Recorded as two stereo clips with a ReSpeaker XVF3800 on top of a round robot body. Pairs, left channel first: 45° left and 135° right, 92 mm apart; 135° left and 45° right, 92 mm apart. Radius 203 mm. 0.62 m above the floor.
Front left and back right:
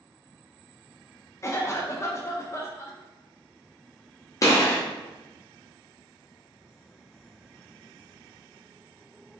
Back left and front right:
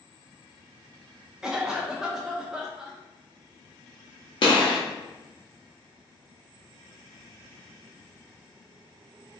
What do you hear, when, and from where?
1.4 s a cough: 30° left, 0.6 m
4.4 s a gunshot: 100° left, 0.6 m